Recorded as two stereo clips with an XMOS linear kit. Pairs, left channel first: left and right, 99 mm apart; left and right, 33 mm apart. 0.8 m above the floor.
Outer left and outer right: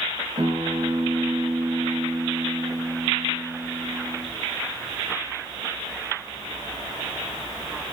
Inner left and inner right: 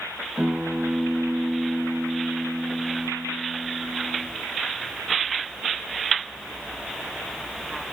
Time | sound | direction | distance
0.4 | a guitar | 70° right (ahead or behind) | 2.5 m